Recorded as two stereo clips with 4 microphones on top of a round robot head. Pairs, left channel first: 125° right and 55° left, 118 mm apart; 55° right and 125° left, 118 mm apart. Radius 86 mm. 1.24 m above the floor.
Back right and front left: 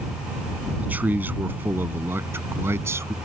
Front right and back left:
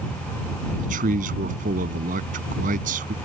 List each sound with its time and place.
0.8 s a man speaking: 135° left; by 3.1 s 125° left